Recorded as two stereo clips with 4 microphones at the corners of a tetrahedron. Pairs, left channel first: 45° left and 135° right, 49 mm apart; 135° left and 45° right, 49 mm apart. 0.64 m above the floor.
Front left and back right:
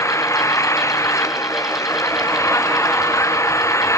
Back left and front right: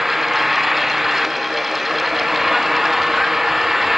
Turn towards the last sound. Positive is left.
turn(degrees=40)